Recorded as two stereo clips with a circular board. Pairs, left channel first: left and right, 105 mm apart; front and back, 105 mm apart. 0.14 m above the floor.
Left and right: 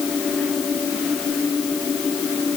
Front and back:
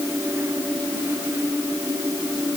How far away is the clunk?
No clunk in this recording.